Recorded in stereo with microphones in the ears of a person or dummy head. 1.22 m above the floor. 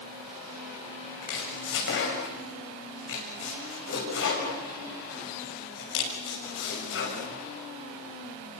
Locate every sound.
1.2 s chopping: 55° left (ahead or behind), 6.5 m